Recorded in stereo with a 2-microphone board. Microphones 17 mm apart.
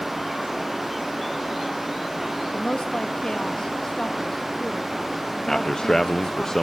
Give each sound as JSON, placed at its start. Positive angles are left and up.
{"t": 2.5, "sound": "a woman speaking", "side_deg": 55, "distance_m": 2.0}
{"t": 5.5, "sound": "a man speaking", "side_deg": 30, "distance_m": 0.7}